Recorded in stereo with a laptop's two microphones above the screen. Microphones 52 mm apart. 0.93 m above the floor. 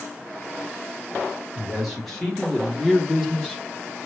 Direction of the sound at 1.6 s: 5° left (ahead or behind).